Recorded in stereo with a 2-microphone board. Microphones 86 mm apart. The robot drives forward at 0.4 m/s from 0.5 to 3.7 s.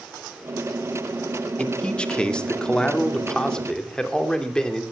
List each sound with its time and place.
1.6 s a man speaking: 10° left (ahead or behind), 1.7 m